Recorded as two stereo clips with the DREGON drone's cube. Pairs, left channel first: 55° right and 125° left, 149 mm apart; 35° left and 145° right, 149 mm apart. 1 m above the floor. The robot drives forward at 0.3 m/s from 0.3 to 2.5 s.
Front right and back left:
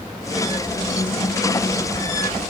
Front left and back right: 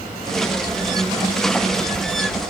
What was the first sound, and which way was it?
Only background noise.